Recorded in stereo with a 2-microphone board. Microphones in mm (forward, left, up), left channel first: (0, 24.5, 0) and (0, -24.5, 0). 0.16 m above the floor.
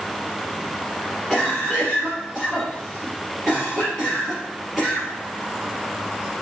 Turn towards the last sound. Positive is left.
turn(degrees=-5)  # may be behind; listen again after turning